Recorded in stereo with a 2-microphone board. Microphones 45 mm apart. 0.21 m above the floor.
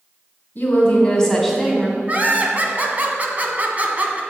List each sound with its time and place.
0.6 s a woman speaking: 40° left (ahead or behind), 1.9 m; by 2.0 s 20° right (ahead or behind), 1.9 m
2.1 s laughter: 35° right (ahead or behind), 1.4 m